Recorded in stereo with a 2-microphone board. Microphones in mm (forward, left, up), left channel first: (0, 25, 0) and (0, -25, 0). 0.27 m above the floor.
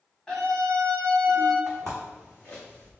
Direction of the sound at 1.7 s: 5° left (ahead or behind).